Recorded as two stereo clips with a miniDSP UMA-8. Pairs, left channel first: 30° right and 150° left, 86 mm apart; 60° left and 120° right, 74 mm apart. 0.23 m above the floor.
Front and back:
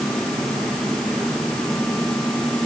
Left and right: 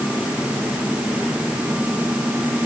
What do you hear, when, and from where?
Only background noise.